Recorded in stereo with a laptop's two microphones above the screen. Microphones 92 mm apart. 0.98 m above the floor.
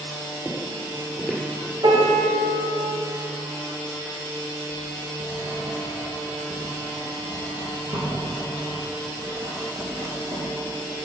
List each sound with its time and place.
0.5 s footsteps: centre (ahead or behind), 1.8 m
1.8 s a piano: 65° right (ahead or behind), 3.5 m
4.7 s writing: 55° right (ahead or behind), 4 m